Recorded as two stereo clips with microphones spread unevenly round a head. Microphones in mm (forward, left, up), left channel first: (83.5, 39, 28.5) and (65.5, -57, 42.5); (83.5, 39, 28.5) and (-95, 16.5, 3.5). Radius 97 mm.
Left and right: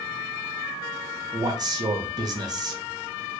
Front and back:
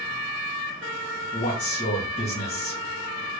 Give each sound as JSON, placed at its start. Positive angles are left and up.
{"t": 1.3, "sound": "a man speaking", "azimuth_deg": -50, "distance_m": 0.8}